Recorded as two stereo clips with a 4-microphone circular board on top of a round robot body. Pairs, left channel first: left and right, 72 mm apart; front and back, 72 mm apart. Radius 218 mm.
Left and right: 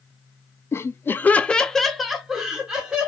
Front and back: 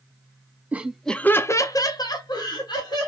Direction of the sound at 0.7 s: 120° left.